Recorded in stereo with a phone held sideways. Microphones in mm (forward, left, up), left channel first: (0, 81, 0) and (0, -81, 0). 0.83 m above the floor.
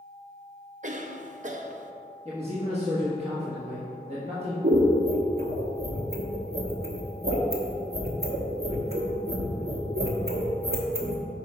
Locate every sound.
0.8 s a cough: 50° right (ahead or behind), 0.5 m
2.2 s a man speaking: 40° right (ahead or behind), 1.2 m
4.6 s scissors: 70° right (ahead or behind), 1.1 m